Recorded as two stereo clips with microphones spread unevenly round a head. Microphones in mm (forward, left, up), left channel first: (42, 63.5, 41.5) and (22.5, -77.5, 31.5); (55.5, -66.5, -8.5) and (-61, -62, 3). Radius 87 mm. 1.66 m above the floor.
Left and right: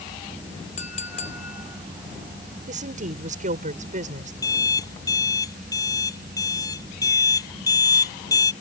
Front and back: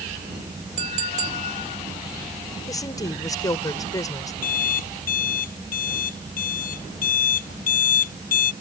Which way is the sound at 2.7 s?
65° right.